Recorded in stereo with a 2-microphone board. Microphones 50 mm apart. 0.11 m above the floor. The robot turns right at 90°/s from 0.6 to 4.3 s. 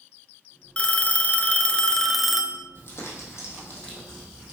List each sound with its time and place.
0.8 s a phone ringing: 45° left, 0.8 m; by 2.6 s 150° right, 0.8 m
2.8 s crumpling: 55° left, 3.5 m; by 4.5 s 165° right, 3.5 m